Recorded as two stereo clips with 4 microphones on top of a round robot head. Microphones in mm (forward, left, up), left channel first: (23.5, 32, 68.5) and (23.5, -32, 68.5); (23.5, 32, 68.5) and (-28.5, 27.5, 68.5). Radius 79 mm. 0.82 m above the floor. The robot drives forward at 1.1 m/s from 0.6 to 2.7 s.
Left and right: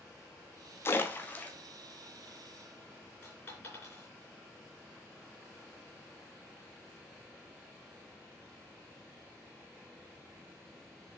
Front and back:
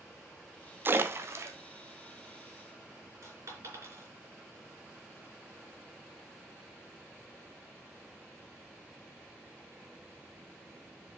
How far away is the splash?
About 1.1 m.